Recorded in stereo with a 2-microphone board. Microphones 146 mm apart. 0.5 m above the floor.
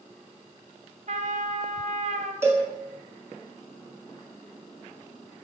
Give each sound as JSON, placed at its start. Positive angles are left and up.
{"t": 1.1, "sound": "a trumpet", "side_deg": -60, "distance_m": 0.5}
{"t": 2.4, "sound": "a cowbell", "side_deg": -20, "distance_m": 1.3}